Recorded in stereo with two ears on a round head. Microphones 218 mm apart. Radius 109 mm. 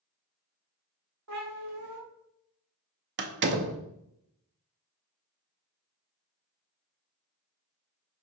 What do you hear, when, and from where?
1.3 s a cat meowing: 65° right (ahead or behind), 1.6 m
3.2 s a door slam: 45° right (ahead or behind), 0.6 m